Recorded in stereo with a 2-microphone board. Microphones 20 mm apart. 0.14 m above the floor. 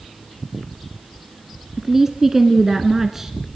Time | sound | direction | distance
1.8 | a woman speaking | 20° right (ahead or behind) | 1.3 m